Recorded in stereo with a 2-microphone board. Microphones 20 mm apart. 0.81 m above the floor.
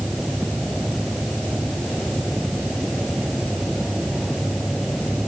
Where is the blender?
No blender in this recording.